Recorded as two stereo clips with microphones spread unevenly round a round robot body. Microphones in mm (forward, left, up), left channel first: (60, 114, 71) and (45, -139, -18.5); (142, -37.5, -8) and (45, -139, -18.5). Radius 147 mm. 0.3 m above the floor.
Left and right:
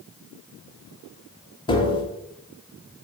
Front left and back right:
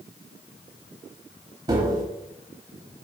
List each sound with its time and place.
1.7 s tapping: 175° left, 0.8 m